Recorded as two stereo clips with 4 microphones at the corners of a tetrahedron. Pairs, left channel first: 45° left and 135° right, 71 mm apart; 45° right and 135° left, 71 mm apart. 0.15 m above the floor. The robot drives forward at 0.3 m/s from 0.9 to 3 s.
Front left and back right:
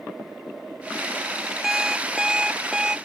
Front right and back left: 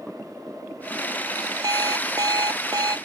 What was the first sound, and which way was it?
An alarm clock, 140° left.